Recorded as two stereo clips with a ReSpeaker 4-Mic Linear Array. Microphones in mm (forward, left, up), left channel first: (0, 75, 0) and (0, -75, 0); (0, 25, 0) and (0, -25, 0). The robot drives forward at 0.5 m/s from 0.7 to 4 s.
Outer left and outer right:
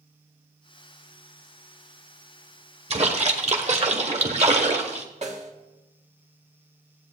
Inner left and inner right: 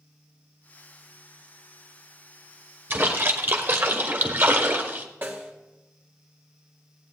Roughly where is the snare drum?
Right.